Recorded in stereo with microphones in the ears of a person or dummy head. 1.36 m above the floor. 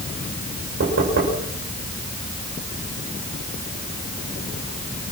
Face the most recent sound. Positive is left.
turn(degrees=-55)  # may be behind; listen again after turning